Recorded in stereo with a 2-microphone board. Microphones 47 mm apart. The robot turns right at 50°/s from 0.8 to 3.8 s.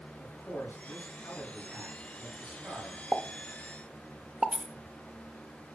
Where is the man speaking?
110° left, 3.5 m; by 3.0 s 140° right, 3.5 m.